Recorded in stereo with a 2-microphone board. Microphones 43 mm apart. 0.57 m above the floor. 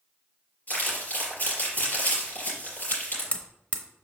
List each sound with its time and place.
0.7 s crumpling: 40° left (ahead or behind), 4 m
2.9 s hammering: 30° left (ahead or behind), 0.8 m